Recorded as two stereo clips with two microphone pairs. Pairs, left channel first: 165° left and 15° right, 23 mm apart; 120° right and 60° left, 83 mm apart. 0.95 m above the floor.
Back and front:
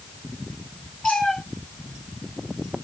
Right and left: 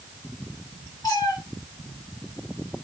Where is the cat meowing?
160° right, 1.9 m.